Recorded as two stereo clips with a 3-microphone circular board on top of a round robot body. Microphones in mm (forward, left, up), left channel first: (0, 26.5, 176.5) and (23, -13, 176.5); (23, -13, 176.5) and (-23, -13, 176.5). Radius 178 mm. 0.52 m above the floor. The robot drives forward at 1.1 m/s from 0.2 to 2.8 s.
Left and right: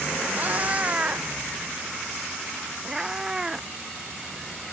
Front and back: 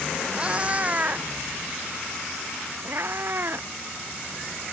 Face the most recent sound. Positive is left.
turn(degrees=-140)